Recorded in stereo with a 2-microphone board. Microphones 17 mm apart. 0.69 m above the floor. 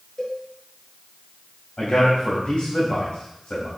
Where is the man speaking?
75° left (ahead or behind), 4 m.